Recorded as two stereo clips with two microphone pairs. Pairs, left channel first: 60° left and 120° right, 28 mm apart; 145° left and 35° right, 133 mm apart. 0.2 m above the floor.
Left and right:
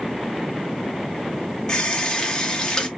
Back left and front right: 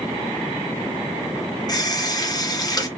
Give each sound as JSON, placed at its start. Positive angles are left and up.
{"t": 1.7, "sound": "a running tap", "azimuth_deg": 110, "distance_m": 0.8}